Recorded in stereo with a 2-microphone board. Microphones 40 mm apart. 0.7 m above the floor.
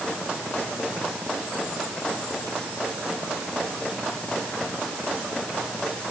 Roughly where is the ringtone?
No ringtone in this recording.